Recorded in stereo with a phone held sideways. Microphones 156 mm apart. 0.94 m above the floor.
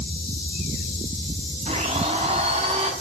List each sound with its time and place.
1.7 s a blender: 40° right (ahead or behind), 4 m